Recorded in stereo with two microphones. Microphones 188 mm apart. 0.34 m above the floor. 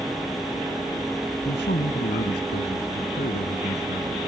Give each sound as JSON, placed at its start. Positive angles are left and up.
{"t": 1.4, "sound": "a man speaking", "side_deg": 60}